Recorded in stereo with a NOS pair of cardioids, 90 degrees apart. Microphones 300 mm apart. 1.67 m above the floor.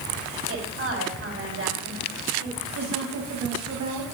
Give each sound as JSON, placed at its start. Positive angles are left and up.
{"t": 0.5, "sound": "a woman speaking", "azimuth_deg": -45, "distance_m": 5.0}
{"t": 2.8, "sound": "a woman speaking", "azimuth_deg": -60, "distance_m": 2.5}